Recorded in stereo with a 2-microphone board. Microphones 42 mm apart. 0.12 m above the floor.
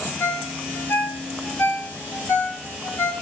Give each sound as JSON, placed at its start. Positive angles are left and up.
{"t": 0.2, "sound": "a ringtone", "side_deg": 75, "distance_m": 6.5}